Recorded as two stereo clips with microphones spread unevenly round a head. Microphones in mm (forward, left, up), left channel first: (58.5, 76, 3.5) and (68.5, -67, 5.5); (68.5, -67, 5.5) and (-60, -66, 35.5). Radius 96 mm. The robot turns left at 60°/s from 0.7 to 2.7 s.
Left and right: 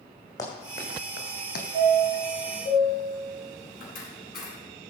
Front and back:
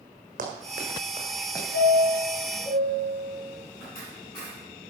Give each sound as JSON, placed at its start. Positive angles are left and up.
{"t": 0.4, "sound": "running footsteps", "azimuth_deg": 165, "distance_m": 3.0}
{"t": 1.7, "sound": "a chime", "azimuth_deg": 140, "distance_m": 6.0}